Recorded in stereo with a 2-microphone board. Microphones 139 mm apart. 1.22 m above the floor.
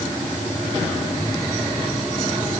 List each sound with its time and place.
Only background noise.